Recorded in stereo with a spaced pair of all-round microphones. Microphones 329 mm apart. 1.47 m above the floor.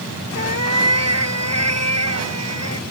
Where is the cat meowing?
50° right (ahead or behind).